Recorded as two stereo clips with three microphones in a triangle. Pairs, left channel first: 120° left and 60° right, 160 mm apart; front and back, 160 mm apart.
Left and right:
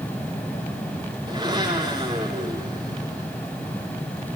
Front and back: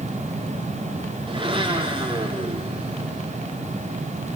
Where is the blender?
120° right, 6.5 m.